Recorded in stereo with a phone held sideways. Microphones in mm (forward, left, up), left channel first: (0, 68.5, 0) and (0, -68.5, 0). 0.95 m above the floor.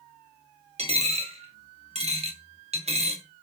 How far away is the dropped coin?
About 0.6 m.